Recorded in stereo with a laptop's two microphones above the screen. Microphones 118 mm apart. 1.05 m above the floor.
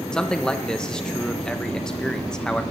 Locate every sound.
0.1 s a man speaking: 5° left (ahead or behind), 0.7 m